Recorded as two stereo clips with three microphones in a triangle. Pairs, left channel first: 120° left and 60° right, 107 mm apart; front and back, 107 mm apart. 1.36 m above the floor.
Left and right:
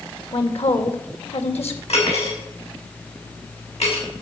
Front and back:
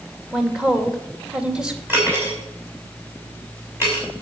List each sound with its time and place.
0.3 s a woman speaking: 100° left, 2.5 m
1.9 s cutlery clinking: 110° left, 6.5 m